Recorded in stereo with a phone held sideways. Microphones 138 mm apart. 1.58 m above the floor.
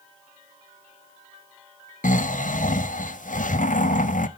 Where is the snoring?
70° left (ahead or behind), 0.6 m.